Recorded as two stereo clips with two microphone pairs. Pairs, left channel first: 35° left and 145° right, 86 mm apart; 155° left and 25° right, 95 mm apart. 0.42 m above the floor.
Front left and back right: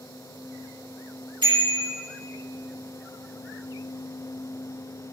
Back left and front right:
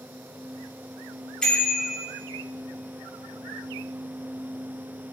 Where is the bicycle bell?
125° right, 6 m.